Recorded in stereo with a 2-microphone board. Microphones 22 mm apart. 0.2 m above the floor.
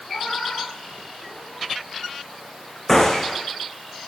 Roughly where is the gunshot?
Centre.